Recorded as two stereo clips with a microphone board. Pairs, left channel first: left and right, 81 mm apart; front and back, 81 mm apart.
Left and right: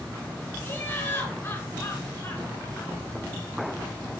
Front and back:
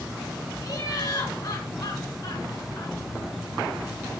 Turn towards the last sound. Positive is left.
turn(degrees=30)